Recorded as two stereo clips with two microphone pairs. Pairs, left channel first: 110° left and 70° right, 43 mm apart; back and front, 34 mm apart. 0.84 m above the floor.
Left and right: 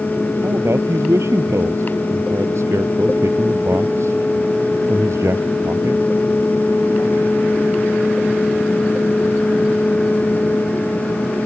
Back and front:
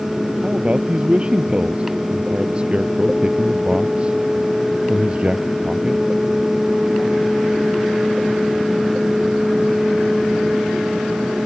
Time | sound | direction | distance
0.4 | a man speaking | 60° right | ?